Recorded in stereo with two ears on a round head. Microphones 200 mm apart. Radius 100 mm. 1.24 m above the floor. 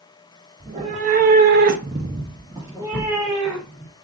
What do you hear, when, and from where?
0.6 s a cat meowing: 25° right (ahead or behind), 1.2 m; by 3.9 s 5° right (ahead or behind), 3 m